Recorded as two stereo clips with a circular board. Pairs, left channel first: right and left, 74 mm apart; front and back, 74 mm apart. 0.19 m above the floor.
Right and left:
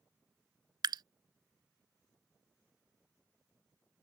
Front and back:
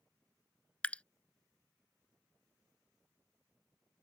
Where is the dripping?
75° left.